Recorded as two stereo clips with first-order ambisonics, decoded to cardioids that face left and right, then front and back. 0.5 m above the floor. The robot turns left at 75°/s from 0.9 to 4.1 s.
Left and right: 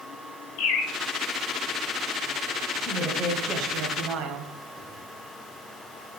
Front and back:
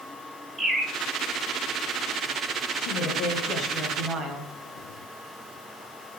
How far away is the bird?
About 2.5 m.